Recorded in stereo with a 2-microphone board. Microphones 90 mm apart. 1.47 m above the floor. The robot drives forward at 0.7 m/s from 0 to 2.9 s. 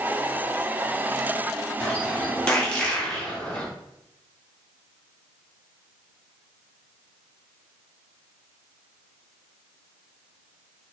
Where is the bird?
10° left (ahead or behind), 2.5 m; by 3.6 s 5° left (ahead or behind), 3 m.